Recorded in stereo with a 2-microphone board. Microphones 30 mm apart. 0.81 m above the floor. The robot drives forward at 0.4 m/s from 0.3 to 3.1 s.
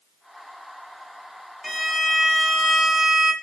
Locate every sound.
1.6 s a violin: 5° left (ahead or behind), 1.8 m